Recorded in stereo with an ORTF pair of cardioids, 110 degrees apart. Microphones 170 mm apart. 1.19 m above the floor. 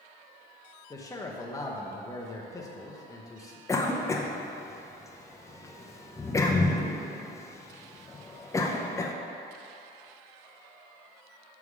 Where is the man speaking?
20° left, 1.0 m.